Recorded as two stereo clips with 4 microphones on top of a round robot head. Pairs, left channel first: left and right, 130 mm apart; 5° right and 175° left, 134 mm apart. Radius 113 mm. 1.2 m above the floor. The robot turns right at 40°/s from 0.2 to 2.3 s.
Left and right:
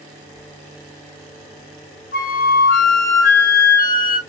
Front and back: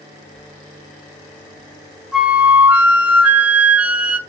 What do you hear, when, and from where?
2.1 s a flute: 90° left, 0.8 m; by 4.2 s 95° left, 0.8 m